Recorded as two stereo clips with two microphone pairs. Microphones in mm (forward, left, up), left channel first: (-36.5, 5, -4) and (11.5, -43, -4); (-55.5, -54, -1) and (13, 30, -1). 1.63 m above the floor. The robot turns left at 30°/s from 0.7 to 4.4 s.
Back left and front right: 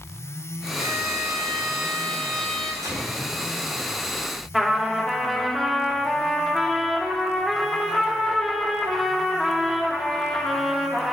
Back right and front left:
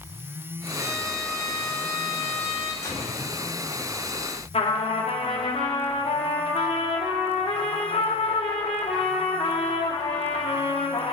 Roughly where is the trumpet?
Behind right.